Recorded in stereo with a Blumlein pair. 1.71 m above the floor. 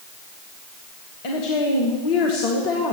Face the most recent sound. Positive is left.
turn(degrees=45)